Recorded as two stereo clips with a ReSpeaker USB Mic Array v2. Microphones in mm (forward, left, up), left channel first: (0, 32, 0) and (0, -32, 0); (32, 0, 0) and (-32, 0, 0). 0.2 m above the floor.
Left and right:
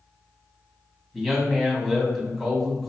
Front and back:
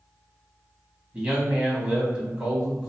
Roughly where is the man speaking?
Behind.